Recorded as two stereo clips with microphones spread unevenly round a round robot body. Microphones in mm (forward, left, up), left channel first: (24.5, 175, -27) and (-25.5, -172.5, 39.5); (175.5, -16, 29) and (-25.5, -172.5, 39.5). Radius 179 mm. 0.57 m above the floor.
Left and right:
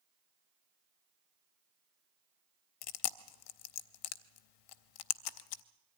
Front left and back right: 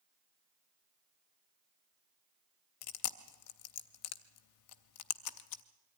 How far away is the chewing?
About 0.6 m.